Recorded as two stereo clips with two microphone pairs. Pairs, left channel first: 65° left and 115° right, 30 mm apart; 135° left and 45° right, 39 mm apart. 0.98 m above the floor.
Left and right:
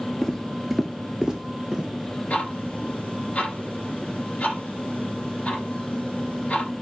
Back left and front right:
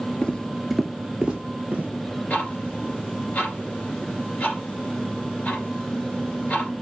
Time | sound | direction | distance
0.2 | footsteps | 135° left | 1.0 m
2.3 | ticking | 95° left | 2.5 m